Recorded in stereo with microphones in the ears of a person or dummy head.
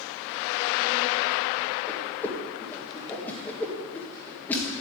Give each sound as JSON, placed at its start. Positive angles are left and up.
{"t": 1.9, "sound": "a whoosh", "side_deg": 5, "distance_m": 1.7}